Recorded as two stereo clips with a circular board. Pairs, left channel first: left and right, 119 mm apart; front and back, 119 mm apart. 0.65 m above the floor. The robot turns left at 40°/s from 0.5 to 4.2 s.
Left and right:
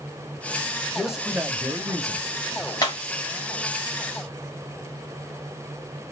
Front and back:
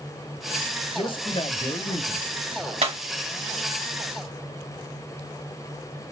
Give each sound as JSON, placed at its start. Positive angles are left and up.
{"t": 0.9, "sound": "a man speaking", "azimuth_deg": 0, "distance_m": 0.9}
{"t": 2.8, "sound": "breaking glass", "azimuth_deg": 150, "distance_m": 1.7}